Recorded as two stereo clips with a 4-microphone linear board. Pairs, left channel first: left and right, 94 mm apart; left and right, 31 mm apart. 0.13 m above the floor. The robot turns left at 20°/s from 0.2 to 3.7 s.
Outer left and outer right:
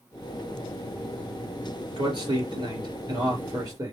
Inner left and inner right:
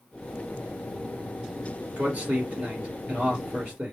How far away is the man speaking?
About 3 m.